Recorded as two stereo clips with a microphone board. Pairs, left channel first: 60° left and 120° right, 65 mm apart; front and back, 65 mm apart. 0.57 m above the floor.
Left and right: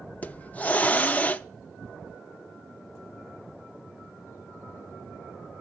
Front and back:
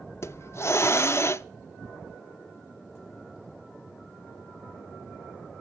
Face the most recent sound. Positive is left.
turn(degrees=5)